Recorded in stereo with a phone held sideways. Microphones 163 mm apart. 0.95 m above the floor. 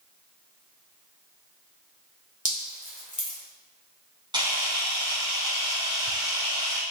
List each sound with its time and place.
2.5 s dripping: 45° left (ahead or behind), 3 m
4.3 s a camera shutter: 25° right (ahead or behind), 3 m